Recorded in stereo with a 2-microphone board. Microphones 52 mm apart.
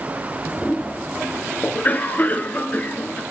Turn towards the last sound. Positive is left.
turn(degrees=30)  # may be behind; listen again after turning